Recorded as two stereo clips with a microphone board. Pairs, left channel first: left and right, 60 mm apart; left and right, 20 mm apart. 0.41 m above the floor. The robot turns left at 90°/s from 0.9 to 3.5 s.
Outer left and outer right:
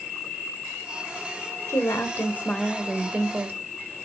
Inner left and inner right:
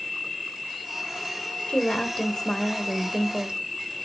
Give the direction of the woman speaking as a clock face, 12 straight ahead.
9 o'clock.